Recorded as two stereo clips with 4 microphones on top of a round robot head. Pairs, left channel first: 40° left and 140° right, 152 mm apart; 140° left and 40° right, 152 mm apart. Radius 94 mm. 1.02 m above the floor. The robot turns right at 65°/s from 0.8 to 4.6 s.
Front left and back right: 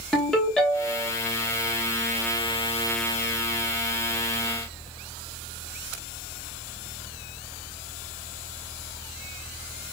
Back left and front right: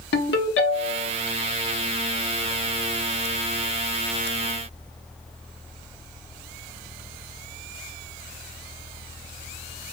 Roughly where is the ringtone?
Behind left.